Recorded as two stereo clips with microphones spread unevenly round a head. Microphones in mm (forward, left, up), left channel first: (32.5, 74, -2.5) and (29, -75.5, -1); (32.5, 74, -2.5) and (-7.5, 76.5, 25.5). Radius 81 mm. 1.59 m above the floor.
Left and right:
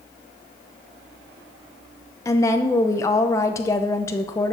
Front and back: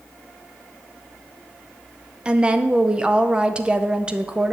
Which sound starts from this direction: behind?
A woman speaking, at 2.2 s.